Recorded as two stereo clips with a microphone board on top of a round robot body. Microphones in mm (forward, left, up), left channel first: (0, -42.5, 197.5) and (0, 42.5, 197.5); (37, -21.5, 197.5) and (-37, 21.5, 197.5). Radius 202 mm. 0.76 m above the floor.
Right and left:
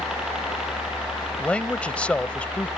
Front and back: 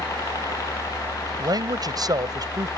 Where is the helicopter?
10° left.